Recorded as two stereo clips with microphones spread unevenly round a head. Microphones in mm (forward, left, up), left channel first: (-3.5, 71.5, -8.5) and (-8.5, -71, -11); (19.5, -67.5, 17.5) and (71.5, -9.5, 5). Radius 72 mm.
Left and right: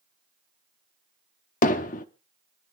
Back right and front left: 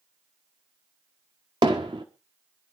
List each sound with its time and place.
1.6 s hammering: 105° left, 0.9 m